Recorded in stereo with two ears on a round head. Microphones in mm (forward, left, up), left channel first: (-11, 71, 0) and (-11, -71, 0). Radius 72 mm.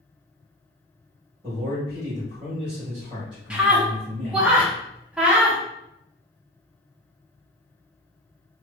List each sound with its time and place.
1.4 s a man speaking: 30° right (ahead or behind), 1.5 m
3.5 s a scream: 5° right (ahead or behind), 0.8 m